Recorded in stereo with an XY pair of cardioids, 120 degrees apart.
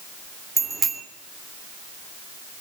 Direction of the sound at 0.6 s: 25° right.